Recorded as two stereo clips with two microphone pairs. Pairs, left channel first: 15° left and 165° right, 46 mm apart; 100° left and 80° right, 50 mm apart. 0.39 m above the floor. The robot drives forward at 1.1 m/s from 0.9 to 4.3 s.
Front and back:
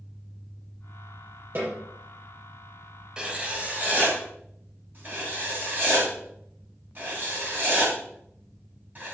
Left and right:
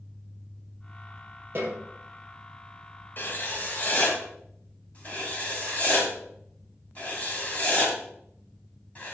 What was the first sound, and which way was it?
A snare drum, 120° right.